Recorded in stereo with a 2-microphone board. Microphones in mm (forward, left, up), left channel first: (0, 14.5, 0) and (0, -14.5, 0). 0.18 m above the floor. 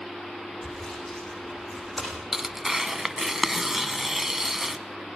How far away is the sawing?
About 9 m.